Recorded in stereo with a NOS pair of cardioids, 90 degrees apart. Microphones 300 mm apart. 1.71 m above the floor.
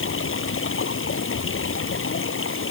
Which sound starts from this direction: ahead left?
Running water, at 0.0 s.